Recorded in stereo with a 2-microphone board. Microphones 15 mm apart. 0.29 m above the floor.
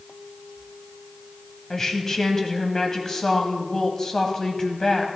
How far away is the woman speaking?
About 1.8 m.